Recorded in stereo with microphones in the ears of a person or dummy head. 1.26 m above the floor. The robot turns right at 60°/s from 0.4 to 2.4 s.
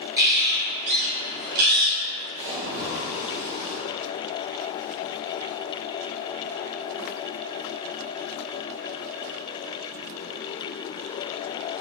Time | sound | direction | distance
0.2 | a bird | 160° right | 0.6 m
2.4 | a splash | 20° right (ahead or behind) | 1.5 m